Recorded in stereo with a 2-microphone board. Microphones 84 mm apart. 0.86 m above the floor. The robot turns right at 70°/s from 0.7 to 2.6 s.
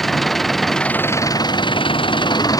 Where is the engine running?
Straight ahead; by 2.6 s 135° left.